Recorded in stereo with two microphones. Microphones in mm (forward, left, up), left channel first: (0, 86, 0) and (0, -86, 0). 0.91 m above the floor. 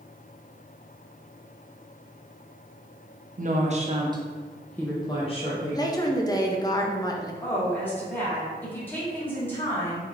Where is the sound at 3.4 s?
50° right (ahead or behind), 0.8 m; by 5.8 s 45° left (ahead or behind), 0.9 m.